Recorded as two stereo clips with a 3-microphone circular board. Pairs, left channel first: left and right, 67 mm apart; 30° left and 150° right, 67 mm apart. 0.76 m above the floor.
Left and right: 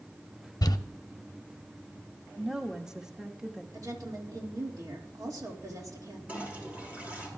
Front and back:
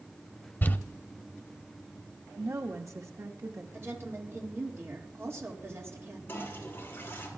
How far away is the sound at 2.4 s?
About 1.1 m.